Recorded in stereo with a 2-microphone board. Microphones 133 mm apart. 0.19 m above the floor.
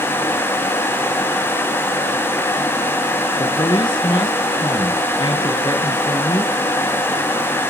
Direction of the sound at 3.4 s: 35° left (ahead or behind).